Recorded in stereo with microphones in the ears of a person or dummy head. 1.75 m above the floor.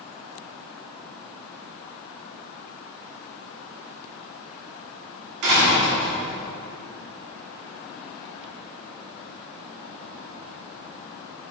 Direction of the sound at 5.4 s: 60° right (ahead or behind).